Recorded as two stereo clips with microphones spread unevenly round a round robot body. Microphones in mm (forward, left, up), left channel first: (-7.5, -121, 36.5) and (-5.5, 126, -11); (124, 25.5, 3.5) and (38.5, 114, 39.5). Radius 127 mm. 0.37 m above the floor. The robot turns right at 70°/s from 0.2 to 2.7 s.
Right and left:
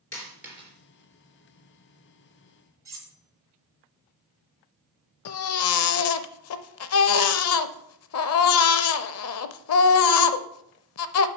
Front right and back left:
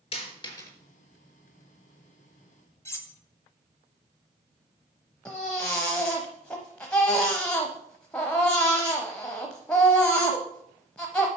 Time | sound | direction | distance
0.1 | a dropped coin | 10° right | 3.5 m
2.9 | cutlery clinking | 15° left | 1.4 m
5.2 | a baby crying | 125° right | 0.6 m